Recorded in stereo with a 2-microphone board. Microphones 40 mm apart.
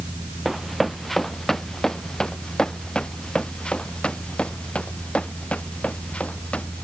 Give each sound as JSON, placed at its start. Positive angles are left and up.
{"t": 0.5, "sound": "running footsteps", "side_deg": 0}